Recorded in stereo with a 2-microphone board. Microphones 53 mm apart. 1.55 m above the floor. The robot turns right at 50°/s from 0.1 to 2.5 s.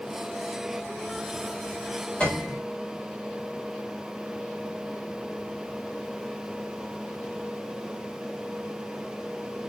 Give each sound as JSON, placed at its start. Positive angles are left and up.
{"t": 2.2, "sound": "a piano", "side_deg": 20, "distance_m": 7.5}